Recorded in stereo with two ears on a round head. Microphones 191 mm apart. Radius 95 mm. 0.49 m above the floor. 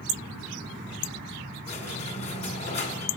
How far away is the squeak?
About 2.0 m.